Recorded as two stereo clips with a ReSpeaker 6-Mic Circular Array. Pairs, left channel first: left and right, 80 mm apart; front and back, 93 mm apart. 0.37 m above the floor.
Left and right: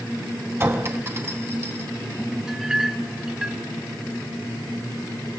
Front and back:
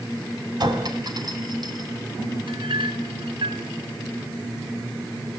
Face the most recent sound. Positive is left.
turn(degrees=-170)